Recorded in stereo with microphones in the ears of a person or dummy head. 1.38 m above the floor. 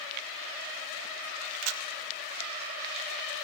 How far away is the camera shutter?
About 2 m.